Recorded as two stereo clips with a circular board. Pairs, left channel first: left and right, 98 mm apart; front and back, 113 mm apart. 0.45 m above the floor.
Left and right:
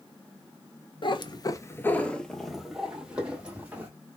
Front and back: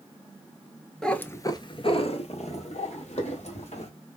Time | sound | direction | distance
1.0 | a cat meowing | 85° left | 0.6 m